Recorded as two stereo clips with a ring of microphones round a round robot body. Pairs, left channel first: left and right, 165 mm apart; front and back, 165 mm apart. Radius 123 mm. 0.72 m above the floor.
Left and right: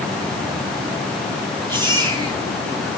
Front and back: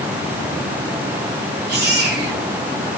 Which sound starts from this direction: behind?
A baby crying, at 1.7 s.